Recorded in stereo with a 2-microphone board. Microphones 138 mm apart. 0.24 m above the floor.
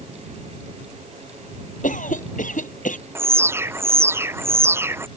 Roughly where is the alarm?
Centre.